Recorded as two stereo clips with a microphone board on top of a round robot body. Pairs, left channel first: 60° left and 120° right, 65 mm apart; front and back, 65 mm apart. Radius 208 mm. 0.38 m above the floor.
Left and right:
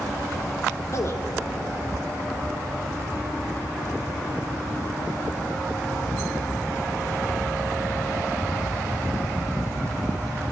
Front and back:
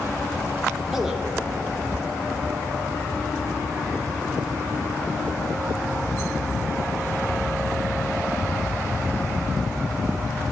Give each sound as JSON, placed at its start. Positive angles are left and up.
{"t": 0.9, "sound": "a man speaking", "azimuth_deg": 95, "distance_m": 1.4}